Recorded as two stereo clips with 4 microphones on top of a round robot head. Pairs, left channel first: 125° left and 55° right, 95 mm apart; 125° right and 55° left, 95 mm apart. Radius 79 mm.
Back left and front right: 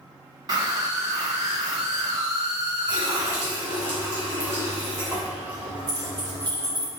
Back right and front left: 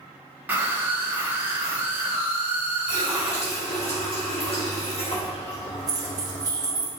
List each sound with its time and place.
0.5 s a scream: 15° right, 1.8 m
2.9 s a running tap: 120° right, 2.5 m
5.9 s keys jangling: straight ahead, 1.6 m